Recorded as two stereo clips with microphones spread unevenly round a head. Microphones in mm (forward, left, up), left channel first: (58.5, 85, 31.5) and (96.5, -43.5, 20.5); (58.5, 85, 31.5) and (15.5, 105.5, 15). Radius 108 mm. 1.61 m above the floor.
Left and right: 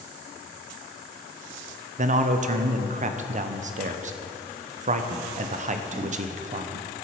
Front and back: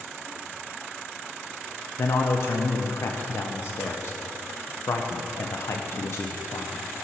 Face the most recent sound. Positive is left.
turn(degrees=-45)